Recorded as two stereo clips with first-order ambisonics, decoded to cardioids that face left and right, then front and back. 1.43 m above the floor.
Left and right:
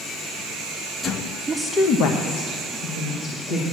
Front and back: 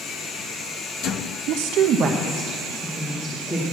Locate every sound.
1.5 s a woman speaking: 165° right, 0.6 m; by 3.6 s 80° left, 2 m